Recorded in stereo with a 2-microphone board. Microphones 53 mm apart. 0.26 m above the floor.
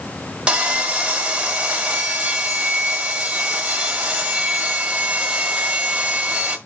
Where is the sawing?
15° right (ahead or behind), 1.4 m.